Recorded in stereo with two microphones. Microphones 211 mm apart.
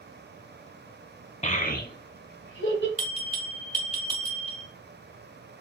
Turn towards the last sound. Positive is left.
turn(degrees=-40)  # may be behind; listen again after turning